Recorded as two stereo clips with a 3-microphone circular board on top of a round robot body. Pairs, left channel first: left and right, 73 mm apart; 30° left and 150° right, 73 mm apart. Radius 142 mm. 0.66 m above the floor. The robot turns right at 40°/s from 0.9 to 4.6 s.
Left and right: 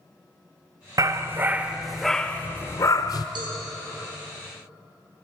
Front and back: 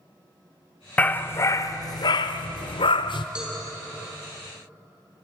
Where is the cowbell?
70° right, 5.5 m; by 3.5 s 65° right, 5.5 m.